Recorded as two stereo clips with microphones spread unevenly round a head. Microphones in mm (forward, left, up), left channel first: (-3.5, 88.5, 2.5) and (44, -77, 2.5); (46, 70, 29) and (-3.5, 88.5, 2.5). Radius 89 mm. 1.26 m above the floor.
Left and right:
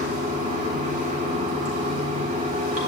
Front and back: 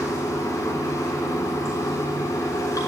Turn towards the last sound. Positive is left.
turn(degrees=-30)